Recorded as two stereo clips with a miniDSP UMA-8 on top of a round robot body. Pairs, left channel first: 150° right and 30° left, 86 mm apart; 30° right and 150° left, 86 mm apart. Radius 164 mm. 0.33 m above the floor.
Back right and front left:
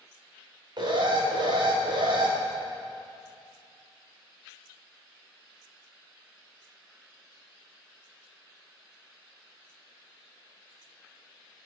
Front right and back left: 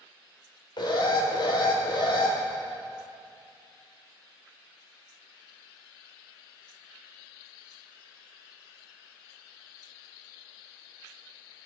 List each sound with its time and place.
0.8 s an alarm: straight ahead, 2.5 m